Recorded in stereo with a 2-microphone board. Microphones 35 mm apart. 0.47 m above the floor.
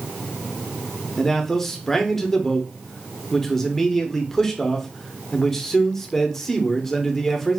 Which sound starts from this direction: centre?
A man speaking, at 1.2 s.